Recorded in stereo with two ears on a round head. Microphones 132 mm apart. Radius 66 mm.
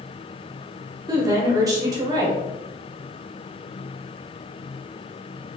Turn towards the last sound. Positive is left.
turn(degrees=-25)  # may be behind; listen again after turning